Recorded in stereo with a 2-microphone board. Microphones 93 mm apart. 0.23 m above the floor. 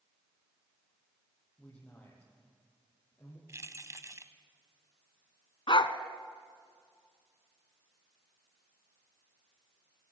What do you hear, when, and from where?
1.6 s a man speaking: 10° left (ahead or behind), 7 m; by 3.4 s 20° left (ahead or behind), 6 m
3.5 s keys jangling: 30° right (ahead or behind), 0.9 m
5.7 s a dog barking: 65° left (ahead or behind), 0.9 m